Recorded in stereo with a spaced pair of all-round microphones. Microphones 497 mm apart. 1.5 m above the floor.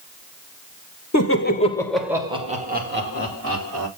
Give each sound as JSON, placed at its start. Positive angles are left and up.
{"t": 1.1, "sound": "laughter", "side_deg": 35, "distance_m": 1.2}